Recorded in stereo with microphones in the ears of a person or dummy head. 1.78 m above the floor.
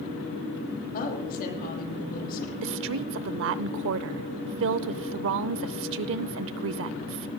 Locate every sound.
0.9 s a woman speaking: 50° left (ahead or behind), 9.5 m
2.6 s a woman speaking: 70° right (ahead or behind), 0.7 m